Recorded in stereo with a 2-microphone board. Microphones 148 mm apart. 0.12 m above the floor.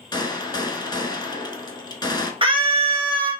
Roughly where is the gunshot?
Left.